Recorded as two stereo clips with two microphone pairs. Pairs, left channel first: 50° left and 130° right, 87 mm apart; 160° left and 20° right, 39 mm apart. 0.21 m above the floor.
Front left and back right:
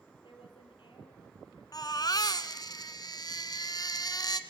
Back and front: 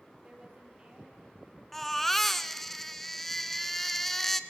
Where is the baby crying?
80° left, 1.2 m.